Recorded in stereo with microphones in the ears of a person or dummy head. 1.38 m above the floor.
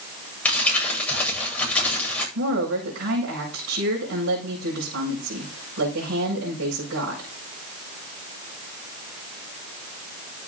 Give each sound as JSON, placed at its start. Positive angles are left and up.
{"t": 0.5, "sound": "crumpling", "side_deg": 10, "distance_m": 8.5}
{"t": 2.4, "sound": "a woman speaking", "side_deg": -90, "distance_m": 6.0}